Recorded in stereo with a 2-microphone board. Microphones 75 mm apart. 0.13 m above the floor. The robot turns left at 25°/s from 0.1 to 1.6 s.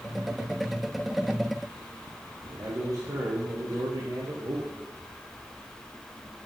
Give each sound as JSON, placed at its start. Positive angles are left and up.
{"t": 2.4, "sound": "a man speaking", "side_deg": -50, "distance_m": 2.5}